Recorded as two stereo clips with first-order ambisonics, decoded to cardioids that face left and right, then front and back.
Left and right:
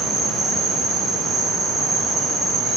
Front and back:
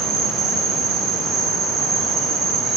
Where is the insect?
145° right, 0.8 m.